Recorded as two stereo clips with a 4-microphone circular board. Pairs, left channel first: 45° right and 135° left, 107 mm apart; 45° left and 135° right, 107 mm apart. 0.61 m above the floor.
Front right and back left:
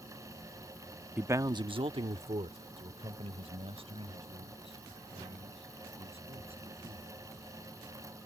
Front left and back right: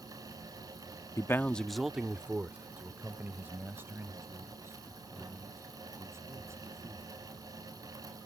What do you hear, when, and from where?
1.2 s a man speaking: 70° left; by 7.1 s 160° left